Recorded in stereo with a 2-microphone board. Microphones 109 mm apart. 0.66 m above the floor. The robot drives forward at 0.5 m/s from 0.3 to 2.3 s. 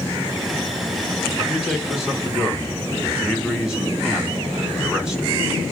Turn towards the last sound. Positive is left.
turn(degrees=-5)  # may be behind; listen again after turning